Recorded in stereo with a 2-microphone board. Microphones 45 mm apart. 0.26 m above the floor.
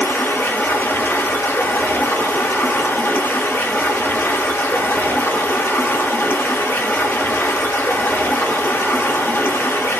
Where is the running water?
65° left (ahead or behind), 0.8 m.